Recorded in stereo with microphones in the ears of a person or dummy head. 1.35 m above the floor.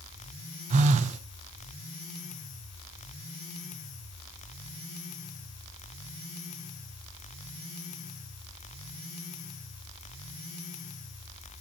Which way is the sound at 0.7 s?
35° right (ahead or behind).